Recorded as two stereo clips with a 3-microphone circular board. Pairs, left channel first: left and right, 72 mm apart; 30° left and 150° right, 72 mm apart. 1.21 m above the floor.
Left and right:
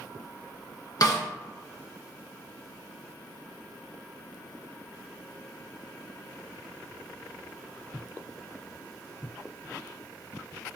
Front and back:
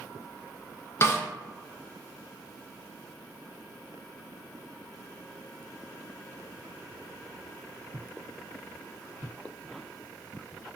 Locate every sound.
1.0 s a snare drum: 75° left, 0.5 m